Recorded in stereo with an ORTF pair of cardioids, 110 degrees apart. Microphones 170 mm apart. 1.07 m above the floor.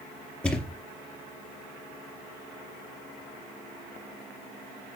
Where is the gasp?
No gasp in this recording.